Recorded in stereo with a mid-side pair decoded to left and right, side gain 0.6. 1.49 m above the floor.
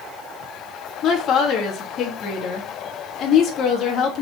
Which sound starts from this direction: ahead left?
A woman speaking, at 1.0 s.